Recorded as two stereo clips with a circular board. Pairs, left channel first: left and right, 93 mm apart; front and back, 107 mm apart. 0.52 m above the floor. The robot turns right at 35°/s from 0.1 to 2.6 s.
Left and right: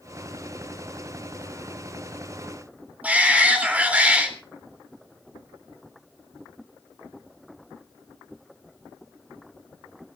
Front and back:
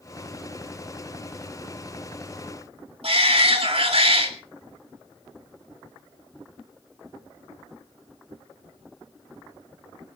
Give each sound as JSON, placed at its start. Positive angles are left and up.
{"t": 3.0, "sound": "a shout", "azimuth_deg": -165, "distance_m": 3.5}